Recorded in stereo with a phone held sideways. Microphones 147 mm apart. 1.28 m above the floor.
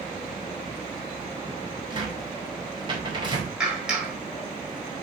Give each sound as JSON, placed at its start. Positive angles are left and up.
{"t": 1.9, "sound": "a cupboard door", "side_deg": -35, "distance_m": 4.5}
{"t": 3.6, "sound": "a clap", "side_deg": -5, "distance_m": 4.0}